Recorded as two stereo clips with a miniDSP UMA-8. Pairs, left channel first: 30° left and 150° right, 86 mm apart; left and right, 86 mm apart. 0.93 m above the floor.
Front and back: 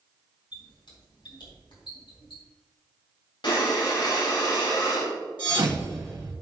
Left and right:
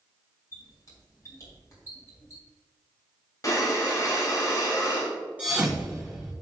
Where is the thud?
160° right, 3 m.